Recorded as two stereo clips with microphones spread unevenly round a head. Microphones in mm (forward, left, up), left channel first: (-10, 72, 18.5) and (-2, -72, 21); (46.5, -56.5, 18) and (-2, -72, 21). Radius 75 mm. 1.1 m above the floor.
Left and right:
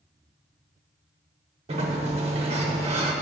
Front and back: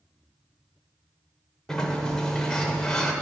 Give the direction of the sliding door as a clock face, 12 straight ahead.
2 o'clock.